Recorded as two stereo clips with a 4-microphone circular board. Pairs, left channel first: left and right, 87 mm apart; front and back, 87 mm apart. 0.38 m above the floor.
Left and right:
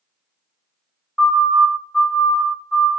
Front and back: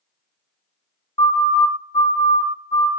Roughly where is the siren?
Ahead.